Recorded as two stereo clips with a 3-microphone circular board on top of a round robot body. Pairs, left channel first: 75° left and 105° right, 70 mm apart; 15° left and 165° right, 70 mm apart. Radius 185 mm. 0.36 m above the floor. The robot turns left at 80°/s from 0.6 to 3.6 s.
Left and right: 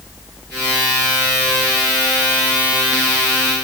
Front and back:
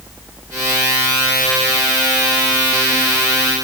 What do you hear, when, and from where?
Only background noise.